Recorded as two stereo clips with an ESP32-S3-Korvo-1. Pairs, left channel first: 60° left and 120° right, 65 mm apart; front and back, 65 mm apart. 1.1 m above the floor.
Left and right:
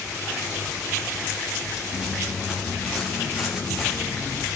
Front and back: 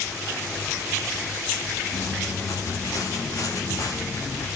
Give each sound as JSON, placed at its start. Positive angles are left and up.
{"t": 1.9, "sound": "footsteps", "azimuth_deg": -40, "distance_m": 10.0}